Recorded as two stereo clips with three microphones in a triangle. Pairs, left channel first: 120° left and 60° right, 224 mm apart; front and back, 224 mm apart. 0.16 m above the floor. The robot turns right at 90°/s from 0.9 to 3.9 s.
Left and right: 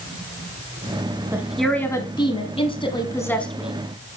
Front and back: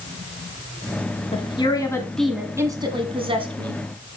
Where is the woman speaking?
5° left, 1.1 m; by 3.8 s 130° right, 1.1 m.